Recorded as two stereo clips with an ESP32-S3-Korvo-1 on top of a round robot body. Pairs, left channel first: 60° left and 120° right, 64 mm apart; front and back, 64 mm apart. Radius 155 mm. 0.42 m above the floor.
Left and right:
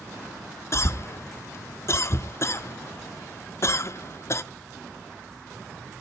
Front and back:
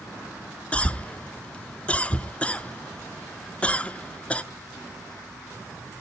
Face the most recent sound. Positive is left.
turn(degrees=60)